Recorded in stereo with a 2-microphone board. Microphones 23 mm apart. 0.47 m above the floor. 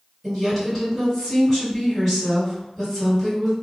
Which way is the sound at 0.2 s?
10° left (ahead or behind).